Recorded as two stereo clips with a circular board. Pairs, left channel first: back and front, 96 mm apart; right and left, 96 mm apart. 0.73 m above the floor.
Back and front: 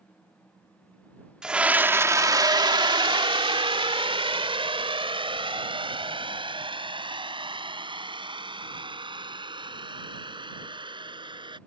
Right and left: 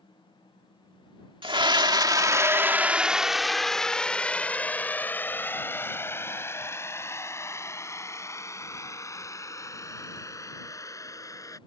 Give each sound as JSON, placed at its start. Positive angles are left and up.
{"t": 1.4, "sound": "a scream", "azimuth_deg": 80}